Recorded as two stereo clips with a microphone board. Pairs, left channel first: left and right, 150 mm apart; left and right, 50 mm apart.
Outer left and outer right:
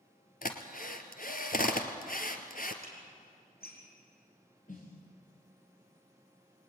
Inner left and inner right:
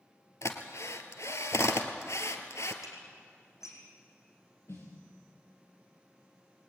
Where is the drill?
65° left (ahead or behind), 2 m.